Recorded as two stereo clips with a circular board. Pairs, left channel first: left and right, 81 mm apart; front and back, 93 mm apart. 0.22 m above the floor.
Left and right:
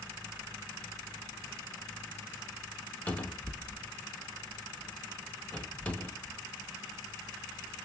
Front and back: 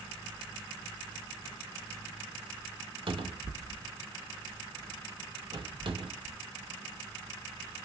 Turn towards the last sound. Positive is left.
turn(degrees=160)